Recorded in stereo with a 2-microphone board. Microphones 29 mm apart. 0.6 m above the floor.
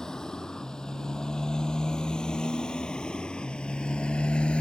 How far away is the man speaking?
I don't hear a man speaking.